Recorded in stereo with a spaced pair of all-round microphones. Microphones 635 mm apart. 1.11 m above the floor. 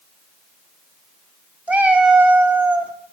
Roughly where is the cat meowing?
Centre.